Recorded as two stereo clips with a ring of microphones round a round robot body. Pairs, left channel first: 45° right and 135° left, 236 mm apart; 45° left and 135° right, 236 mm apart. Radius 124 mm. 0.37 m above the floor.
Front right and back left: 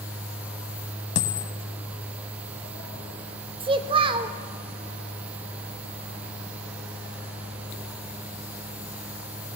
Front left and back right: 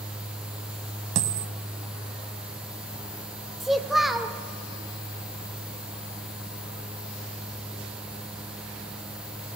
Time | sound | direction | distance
1.1 | a dropped coin | 90° right | 0.6 m
3.6 | a child speaking | 140° left | 0.6 m